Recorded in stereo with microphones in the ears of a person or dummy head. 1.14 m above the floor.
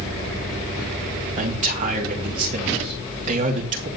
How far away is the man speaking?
About 2.5 m.